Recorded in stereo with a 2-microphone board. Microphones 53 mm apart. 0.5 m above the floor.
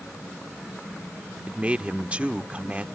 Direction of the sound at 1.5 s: 20° right (ahead or behind).